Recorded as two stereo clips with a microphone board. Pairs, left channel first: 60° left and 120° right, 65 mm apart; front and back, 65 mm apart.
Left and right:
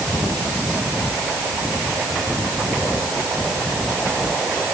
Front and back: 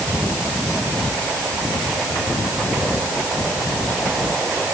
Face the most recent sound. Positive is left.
No sound to turn to.